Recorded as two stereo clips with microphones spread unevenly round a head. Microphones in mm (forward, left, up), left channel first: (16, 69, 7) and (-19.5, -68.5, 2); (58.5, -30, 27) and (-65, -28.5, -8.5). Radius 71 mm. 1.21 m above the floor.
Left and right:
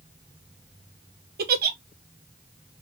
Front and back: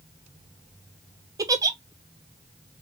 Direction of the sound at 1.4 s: 125° right.